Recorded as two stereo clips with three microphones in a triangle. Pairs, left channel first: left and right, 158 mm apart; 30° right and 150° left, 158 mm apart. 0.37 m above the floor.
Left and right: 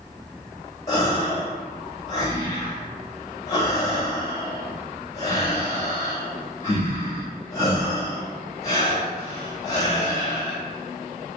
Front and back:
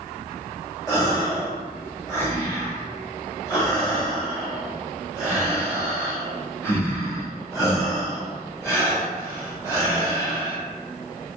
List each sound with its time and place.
0.9 s a gasp: 30° left, 1.4 m